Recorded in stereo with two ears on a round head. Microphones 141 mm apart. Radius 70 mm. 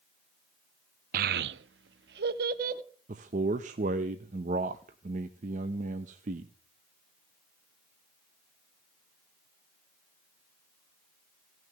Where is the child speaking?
55° right (ahead or behind), 0.6 m.